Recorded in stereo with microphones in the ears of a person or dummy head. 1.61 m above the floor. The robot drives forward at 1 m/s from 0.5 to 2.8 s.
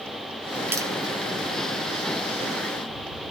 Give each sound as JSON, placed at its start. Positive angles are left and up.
{"t": 0.7, "sound": "tapping", "side_deg": -20, "distance_m": 1.0}